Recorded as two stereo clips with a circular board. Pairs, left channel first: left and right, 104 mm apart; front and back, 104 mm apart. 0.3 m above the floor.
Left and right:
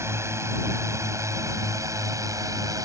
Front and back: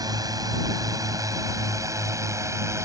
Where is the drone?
145° right; by 2.9 s 130° right.